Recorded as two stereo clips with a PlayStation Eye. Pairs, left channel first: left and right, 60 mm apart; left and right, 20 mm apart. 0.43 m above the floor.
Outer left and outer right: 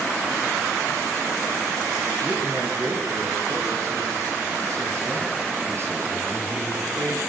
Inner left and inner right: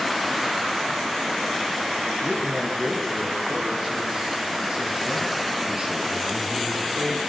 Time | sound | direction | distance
2.2 | a man speaking | 60° right (ahead or behind) | 8 m